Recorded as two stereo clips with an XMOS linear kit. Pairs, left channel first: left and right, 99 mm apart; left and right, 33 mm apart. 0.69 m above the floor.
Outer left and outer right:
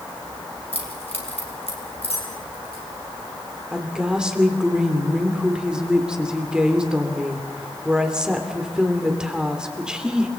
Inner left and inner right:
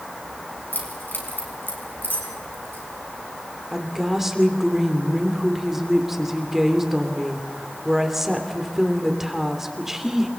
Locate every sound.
0.7 s keys jangling: 80° left, 4.5 m; by 2.8 s 75° left (ahead or behind), 5.5 m
3.7 s a woman speaking: 10° right (ahead or behind), 2.5 m